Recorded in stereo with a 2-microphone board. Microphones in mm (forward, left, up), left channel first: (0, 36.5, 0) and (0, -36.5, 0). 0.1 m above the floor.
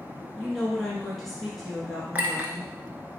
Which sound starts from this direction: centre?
A woman speaking, at 0.4 s.